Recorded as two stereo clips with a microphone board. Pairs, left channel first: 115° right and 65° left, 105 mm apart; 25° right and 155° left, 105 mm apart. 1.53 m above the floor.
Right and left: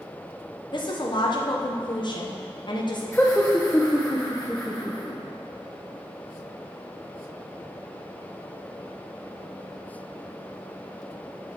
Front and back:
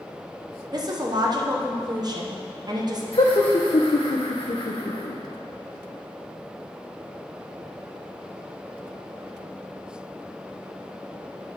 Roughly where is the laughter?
Ahead right.